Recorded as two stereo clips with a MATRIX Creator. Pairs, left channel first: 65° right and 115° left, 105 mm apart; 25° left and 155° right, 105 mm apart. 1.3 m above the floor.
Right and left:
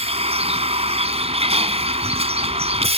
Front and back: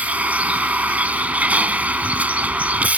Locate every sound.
0.0 s a vehicle: 125° left